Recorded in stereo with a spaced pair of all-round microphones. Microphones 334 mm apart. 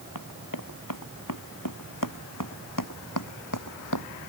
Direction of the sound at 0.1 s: 75° left (ahead or behind).